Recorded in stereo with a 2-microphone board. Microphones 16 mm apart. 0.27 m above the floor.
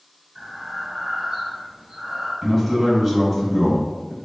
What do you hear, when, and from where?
0.3 s breathing: 65° right (ahead or behind), 1.4 m
2.4 s a man speaking: 25° right (ahead or behind), 1.5 m